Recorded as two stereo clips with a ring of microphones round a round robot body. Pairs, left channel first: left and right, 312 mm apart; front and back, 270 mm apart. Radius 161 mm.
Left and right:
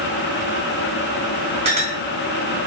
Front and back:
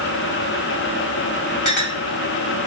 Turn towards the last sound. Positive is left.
turn(degrees=-20)